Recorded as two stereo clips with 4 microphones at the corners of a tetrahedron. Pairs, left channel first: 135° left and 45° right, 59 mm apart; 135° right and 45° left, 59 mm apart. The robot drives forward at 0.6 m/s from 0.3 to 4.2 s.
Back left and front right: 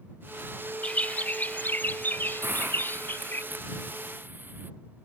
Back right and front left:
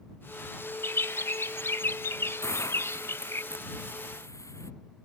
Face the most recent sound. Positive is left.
turn(degrees=-105)